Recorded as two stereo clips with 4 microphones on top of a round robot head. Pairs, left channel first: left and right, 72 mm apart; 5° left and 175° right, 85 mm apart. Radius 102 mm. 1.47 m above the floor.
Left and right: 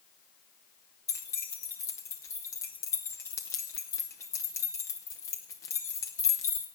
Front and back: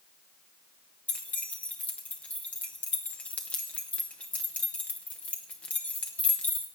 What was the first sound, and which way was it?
Keys jangling, 70° left.